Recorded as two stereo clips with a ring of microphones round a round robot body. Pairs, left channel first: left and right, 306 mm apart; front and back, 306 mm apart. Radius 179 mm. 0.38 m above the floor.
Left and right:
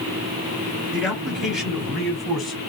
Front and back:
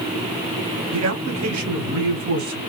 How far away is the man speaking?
About 2 m.